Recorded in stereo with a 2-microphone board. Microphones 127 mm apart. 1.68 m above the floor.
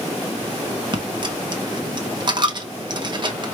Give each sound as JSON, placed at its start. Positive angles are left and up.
{"t": 0.9, "sound": "a dropped coin", "side_deg": -35, "distance_m": 1.1}